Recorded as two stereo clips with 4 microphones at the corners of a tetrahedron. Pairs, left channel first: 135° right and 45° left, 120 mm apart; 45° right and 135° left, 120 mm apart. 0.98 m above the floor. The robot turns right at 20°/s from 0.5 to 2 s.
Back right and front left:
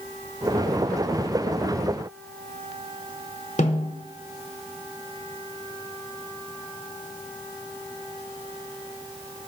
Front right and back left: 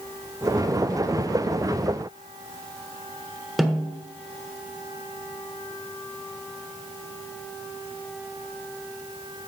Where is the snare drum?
135° right, 1.5 m.